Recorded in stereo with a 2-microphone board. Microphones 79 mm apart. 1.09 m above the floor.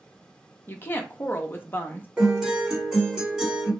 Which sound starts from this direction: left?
A woman speaking, at 0.7 s.